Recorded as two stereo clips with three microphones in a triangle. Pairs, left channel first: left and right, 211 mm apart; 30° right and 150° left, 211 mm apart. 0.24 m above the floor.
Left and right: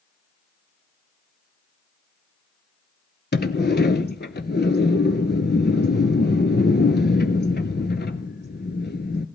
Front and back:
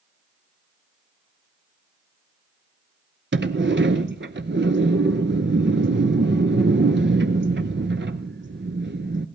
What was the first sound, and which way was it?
A sliding door, 125° left.